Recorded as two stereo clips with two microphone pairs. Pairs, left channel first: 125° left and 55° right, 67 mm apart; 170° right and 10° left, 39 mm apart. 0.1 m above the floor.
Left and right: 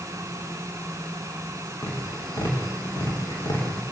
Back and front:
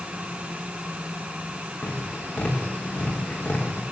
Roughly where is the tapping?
Behind left.